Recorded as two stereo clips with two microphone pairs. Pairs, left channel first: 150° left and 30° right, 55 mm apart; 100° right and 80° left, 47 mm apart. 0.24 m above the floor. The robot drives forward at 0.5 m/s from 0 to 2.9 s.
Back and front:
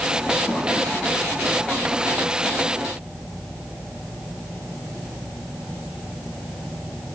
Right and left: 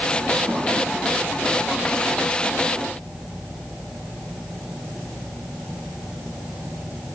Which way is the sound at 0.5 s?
80° left.